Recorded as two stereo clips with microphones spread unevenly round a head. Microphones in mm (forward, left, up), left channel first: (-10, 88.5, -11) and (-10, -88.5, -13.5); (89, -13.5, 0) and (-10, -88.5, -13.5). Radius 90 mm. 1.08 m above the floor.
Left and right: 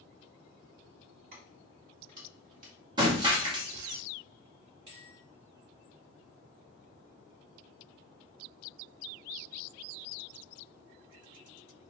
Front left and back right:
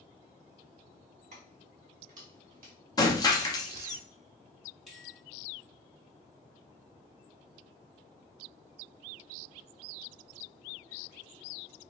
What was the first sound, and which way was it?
Keys jangling, 125° right.